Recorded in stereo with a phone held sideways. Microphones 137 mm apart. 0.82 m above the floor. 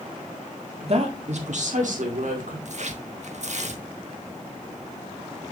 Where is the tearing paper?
55° right (ahead or behind), 1.0 m.